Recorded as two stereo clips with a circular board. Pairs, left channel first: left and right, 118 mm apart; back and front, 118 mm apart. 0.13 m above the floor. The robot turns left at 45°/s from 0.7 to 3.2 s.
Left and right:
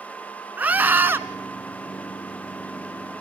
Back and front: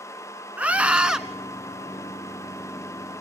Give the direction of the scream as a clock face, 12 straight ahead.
2 o'clock.